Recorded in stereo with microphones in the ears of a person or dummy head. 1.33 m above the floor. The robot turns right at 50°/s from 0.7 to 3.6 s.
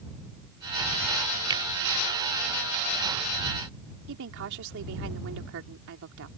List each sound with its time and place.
1.5 s a finger snap: 25° right (ahead or behind); by 1.6 s 20° right (ahead or behind)
4.1 s a woman speaking: 70° right (ahead or behind)